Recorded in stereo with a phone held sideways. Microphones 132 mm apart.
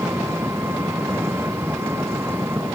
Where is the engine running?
15° right (ahead or behind).